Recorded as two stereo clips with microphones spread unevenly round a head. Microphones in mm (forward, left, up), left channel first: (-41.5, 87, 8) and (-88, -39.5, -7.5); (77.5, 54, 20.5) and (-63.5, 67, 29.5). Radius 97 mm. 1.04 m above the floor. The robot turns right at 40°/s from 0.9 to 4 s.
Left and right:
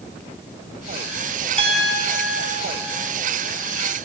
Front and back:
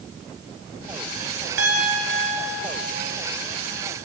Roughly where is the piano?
Behind right.